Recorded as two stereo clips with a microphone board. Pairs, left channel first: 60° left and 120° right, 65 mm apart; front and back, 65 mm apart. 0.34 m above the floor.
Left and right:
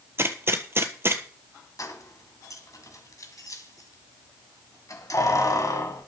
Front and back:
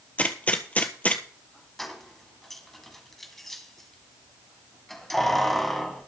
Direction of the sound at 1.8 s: 85° left.